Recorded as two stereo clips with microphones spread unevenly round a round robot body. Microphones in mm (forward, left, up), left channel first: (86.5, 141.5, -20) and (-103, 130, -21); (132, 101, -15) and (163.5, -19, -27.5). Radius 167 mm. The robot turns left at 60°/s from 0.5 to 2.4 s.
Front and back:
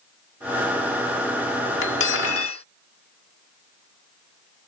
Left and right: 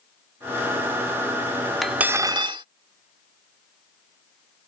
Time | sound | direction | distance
1.8 | cutlery clinking | 15° left | ?